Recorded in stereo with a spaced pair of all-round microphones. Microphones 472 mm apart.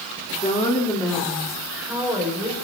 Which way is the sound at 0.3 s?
15° left (ahead or behind).